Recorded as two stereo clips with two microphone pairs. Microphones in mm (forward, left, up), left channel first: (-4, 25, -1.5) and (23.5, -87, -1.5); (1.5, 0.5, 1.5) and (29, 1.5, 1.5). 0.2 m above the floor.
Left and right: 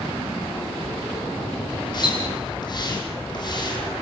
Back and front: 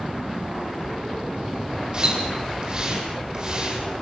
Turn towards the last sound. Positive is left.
turn(degrees=55)